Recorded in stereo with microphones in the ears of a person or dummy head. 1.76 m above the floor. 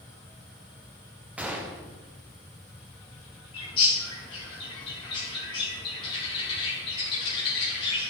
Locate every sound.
1.4 s a gunshot: 10° right (ahead or behind), 0.5 m
3.5 s a bird: 35° left (ahead or behind), 1.4 m